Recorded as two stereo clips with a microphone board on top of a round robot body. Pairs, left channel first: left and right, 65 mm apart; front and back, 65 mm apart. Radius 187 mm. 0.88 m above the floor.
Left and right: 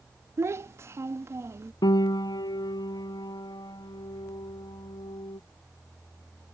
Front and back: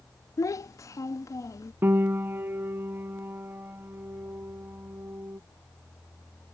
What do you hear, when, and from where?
0.4 s a child speaking: 40° right
1.8 s a piano: 120° left